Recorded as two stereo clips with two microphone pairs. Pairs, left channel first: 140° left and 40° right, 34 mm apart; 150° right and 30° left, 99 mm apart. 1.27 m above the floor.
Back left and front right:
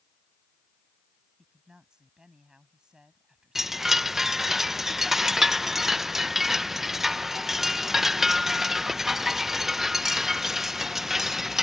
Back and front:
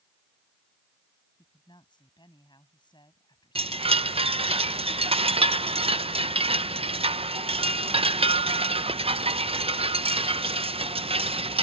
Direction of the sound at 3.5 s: 35° left.